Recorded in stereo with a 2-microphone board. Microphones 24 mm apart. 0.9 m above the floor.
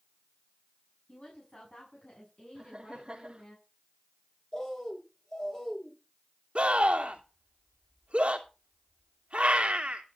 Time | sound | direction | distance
1.1 | a woman speaking | 50° left (ahead or behind) | 7 m
2.5 | laughter | 35° right (ahead or behind) | 2 m
4.5 | a bird | 25° left (ahead or behind) | 6.5 m
6.5 | a scream | 55° right (ahead or behind) | 2.5 m